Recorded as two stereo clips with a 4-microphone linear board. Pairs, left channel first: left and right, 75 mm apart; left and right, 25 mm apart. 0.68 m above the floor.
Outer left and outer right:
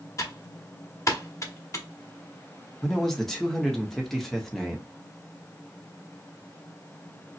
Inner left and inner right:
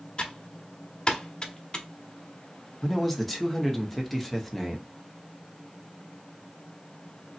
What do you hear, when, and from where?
0.2 s typing on a keyboard: 40° left (ahead or behind), 0.8 m
2.8 s a man speaking: 5° left (ahead or behind), 0.8 m